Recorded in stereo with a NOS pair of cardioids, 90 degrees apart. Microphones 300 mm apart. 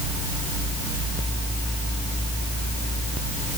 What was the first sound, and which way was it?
Only background noise.